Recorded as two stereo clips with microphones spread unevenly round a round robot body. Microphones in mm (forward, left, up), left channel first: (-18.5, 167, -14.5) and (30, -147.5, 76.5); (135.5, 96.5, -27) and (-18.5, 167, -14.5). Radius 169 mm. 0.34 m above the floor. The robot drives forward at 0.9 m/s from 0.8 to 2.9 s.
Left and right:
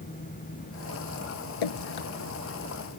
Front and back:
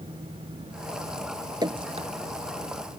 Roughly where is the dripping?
Left.